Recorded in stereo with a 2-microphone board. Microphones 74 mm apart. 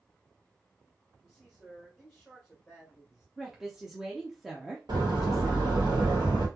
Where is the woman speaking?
5° right (ahead or behind), 0.7 m.